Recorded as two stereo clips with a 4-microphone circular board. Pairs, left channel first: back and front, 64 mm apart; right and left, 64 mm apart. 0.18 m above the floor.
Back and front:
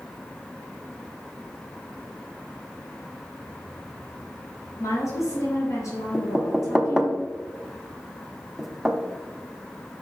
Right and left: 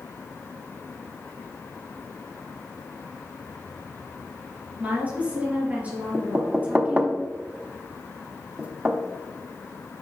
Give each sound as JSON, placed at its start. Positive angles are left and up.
{"t": 4.8, "sound": "a woman speaking", "azimuth_deg": 155, "distance_m": 3.0}
{"t": 6.1, "sound": "knocking", "azimuth_deg": 80, "distance_m": 0.8}